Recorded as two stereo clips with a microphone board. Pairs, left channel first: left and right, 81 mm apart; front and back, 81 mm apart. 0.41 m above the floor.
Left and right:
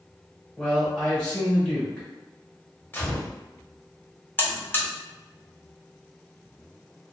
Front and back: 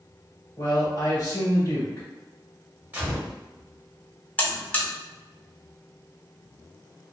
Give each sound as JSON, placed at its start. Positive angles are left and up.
{"t": 0.6, "sound": "a man speaking", "azimuth_deg": 15, "distance_m": 1.7}
{"t": 2.9, "sound": "a gunshot", "azimuth_deg": 125, "distance_m": 1.3}
{"t": 4.4, "sound": "a buzzer", "azimuth_deg": 50, "distance_m": 0.5}